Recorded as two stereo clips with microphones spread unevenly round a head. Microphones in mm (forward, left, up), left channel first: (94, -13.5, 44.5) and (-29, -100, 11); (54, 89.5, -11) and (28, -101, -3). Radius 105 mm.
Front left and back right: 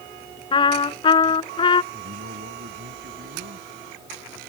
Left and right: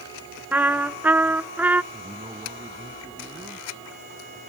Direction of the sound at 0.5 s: 15° right.